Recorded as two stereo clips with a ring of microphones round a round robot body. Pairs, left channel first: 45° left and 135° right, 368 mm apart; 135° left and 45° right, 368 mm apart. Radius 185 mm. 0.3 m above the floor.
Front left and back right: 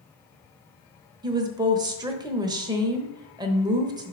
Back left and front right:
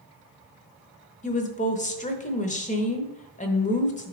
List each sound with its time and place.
1.2 s a woman speaking: 165° left, 1.0 m